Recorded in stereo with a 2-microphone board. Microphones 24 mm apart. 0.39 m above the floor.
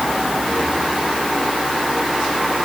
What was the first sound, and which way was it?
Only background noise.